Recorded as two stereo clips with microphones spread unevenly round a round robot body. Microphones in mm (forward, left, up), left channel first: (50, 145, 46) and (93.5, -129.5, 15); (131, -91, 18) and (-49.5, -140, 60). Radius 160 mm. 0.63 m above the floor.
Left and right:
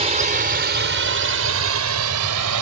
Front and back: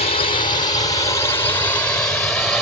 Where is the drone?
20° right; by 2.6 s 70° right.